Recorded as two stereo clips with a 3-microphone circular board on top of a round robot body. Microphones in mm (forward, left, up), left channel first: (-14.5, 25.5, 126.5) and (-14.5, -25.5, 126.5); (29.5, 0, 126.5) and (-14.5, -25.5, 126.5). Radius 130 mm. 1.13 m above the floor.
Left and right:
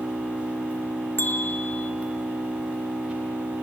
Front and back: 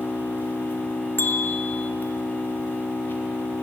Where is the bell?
60° left, 0.8 m.